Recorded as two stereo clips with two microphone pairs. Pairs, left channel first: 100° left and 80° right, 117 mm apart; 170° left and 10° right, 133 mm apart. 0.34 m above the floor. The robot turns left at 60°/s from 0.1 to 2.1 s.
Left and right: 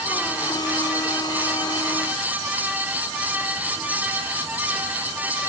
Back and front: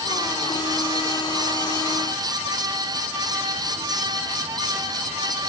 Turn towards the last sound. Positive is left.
No sound to turn to.